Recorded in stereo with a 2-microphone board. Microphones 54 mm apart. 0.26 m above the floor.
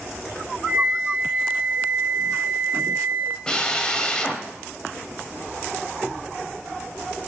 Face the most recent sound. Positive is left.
turn(degrees=15)  # may be behind; listen again after turning